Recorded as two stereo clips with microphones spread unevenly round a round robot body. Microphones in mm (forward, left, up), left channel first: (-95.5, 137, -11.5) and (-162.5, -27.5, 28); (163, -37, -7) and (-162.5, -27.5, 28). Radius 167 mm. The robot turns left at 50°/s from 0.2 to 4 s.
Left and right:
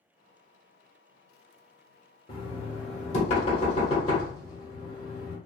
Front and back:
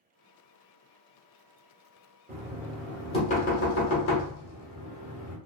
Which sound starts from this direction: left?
Knocking, at 2.3 s.